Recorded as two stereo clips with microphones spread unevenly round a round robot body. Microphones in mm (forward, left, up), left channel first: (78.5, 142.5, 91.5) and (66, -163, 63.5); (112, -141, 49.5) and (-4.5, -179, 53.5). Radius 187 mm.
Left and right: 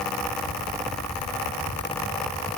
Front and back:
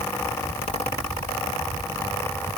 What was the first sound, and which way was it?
Only background noise.